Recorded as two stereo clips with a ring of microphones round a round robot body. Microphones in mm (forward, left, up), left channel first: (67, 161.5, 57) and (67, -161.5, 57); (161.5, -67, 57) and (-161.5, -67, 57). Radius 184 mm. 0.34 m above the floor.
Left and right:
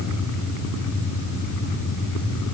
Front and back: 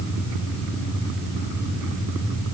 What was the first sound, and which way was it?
Only background noise.